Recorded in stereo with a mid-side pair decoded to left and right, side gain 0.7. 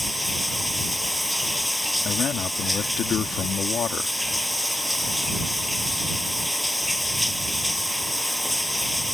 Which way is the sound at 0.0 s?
5° left.